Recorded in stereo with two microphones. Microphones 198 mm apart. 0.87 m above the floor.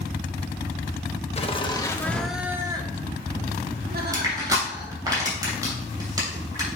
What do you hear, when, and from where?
1.4 s laughter: 35° left (ahead or behind), 1.2 m; by 5.1 s 65° right (ahead or behind), 2 m
4.1 s crushing: 20° right (ahead or behind), 3 m